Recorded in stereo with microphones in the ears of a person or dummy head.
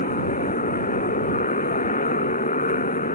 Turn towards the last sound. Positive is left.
turn(degrees=35)  # may be behind; listen again after turning